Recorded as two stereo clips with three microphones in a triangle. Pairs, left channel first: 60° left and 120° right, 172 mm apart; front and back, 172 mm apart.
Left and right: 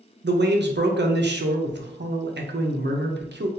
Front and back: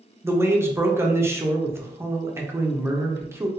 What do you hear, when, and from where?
0.2 s a man speaking: 105° right, 0.6 m